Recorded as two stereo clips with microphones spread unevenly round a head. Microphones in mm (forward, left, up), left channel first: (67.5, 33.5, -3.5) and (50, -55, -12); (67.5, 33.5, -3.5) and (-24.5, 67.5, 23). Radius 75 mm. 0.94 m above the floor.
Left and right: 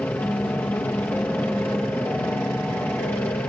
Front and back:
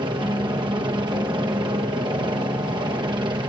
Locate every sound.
0.0 s a helicopter: 150° left